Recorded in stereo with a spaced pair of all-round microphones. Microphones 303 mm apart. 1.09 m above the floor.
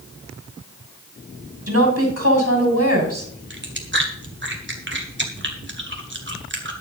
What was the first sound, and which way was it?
A woman speaking, 50° right (ahead or behind).